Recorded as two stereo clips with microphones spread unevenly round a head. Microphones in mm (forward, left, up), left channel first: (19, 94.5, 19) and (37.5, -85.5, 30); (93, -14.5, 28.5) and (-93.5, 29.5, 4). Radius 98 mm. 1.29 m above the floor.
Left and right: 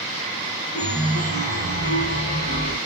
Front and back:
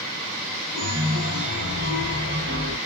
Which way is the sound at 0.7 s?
135° left.